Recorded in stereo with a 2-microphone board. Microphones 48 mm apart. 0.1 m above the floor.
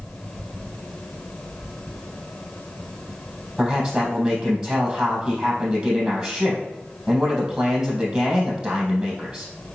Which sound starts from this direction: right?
A man speaking, at 3.6 s.